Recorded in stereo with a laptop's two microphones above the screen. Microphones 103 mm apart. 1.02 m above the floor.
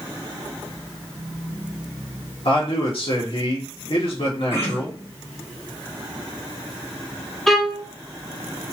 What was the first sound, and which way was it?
A man speaking, 65° left (ahead or behind).